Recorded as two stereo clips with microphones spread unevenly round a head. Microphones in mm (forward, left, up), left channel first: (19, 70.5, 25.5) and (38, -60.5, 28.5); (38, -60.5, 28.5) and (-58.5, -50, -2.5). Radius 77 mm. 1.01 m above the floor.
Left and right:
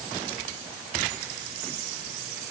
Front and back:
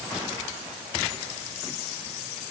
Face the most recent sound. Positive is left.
No sound to turn to.